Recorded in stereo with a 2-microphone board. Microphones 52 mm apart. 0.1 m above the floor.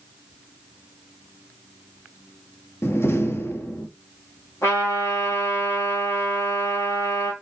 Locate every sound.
2.8 s a door slam: 50° left (ahead or behind), 1.7 m
4.6 s a trumpet: 65° left (ahead or behind), 5 m